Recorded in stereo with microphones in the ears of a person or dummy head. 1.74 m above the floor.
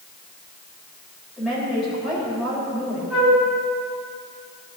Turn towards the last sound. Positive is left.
turn(degrees=-5)  # may be behind; listen again after turning